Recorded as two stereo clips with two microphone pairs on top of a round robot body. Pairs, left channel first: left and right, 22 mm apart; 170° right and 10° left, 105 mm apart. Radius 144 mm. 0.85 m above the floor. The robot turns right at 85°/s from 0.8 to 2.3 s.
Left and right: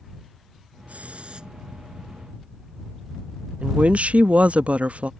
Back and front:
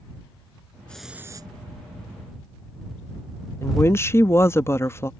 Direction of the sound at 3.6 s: 100° right.